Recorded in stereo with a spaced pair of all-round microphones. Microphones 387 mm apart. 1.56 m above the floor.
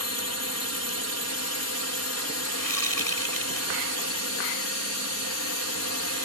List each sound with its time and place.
0.0 s a drone: 40° left (ahead or behind)
2.6 s a whoosh: 60° left (ahead or behind)